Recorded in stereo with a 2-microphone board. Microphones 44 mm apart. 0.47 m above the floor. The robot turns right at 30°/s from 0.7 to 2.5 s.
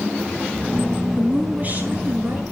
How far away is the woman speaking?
About 7 m.